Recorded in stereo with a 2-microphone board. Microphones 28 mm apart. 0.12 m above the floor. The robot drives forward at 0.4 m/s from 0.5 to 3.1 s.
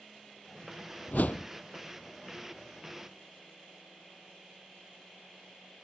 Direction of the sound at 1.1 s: 75° left (ahead or behind).